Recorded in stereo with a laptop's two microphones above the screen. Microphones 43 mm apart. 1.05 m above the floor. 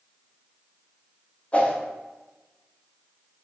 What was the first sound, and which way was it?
A whoosh, 35° left (ahead or behind).